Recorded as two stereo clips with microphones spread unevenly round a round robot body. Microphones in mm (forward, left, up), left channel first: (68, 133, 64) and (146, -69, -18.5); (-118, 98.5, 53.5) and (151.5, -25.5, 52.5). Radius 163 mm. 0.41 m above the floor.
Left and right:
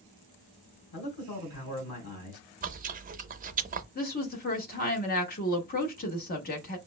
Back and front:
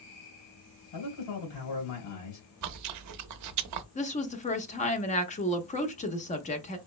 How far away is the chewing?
About 0.5 m.